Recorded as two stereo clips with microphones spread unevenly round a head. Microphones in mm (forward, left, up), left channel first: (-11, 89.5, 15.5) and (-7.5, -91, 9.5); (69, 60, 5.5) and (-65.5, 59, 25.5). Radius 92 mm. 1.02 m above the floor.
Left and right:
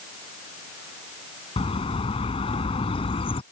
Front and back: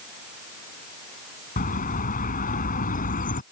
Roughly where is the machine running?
No machine running in this recording.